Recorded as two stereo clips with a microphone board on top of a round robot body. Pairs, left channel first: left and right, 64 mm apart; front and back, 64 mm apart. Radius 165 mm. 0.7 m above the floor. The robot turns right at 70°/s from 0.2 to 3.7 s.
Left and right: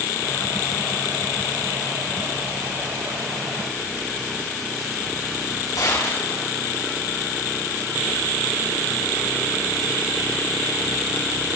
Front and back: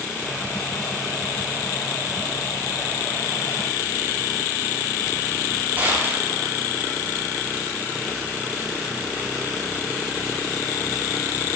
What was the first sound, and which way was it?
A gunshot, 115° left.